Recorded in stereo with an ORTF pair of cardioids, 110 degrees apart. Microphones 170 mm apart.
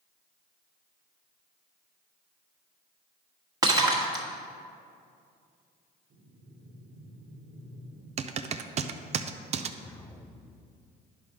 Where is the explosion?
15° left, 0.5 m.